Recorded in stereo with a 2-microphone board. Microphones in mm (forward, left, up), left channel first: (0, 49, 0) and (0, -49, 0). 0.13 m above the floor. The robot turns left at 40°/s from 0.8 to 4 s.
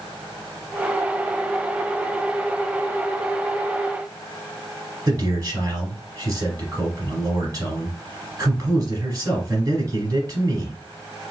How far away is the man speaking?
About 1.8 m.